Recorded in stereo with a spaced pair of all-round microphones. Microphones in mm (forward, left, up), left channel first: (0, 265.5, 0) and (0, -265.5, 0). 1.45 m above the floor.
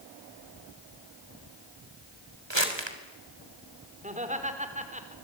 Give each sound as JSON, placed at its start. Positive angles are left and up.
{"t": 2.5, "sound": "crumpling", "side_deg": -55, "distance_m": 3.5}
{"t": 4.0, "sound": "laughter", "side_deg": -15, "distance_m": 4.0}